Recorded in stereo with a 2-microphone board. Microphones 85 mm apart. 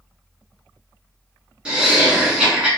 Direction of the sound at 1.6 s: 10° right (ahead or behind).